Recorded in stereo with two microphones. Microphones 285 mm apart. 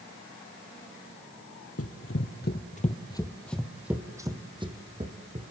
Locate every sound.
1.8 s running footsteps: 55° left (ahead or behind), 1.9 m; by 5.5 s 25° right (ahead or behind), 3.5 m